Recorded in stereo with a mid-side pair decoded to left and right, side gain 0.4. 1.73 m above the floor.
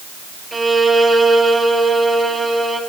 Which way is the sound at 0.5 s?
25° right.